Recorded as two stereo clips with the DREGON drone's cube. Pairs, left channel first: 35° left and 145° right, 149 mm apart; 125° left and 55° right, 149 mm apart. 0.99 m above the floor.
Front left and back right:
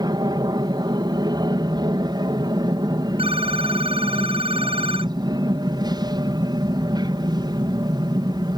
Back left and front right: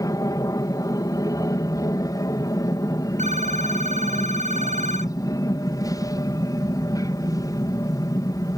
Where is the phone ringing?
95° right.